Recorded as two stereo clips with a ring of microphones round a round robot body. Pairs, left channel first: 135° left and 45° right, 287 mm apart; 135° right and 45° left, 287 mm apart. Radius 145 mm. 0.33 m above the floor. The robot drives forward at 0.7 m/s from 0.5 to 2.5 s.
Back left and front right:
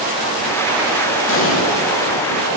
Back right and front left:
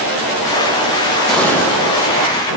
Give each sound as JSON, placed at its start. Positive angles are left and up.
{"t": 1.3, "sound": "an explosion", "azimuth_deg": 140, "distance_m": 1.7}